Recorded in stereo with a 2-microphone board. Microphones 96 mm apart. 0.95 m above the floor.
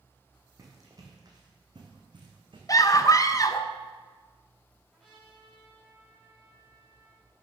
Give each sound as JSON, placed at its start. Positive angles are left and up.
{"t": 0.6, "sound": "running footsteps", "side_deg": -35, "distance_m": 3.0}
{"t": 2.7, "sound": "a scream", "side_deg": 40, "distance_m": 0.7}
{"t": 4.9, "sound": "a trumpet", "side_deg": 5, "distance_m": 5.0}